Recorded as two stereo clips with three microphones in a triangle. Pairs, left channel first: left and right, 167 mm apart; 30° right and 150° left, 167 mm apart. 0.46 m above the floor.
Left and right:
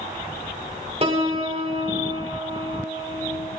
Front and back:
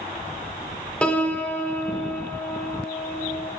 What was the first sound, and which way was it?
A piano, 110° right.